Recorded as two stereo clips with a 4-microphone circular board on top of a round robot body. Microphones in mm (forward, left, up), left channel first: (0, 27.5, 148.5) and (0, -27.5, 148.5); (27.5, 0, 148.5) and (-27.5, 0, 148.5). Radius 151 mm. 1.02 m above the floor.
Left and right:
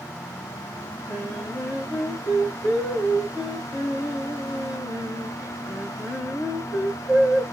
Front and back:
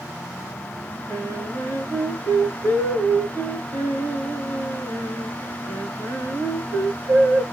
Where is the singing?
140° right, 1.5 m.